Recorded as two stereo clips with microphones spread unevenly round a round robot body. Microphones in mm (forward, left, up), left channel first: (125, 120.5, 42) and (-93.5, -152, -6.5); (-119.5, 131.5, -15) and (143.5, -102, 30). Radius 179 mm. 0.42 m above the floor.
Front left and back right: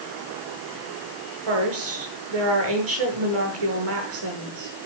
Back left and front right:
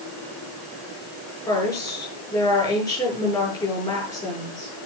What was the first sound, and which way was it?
A woman speaking, 140° right.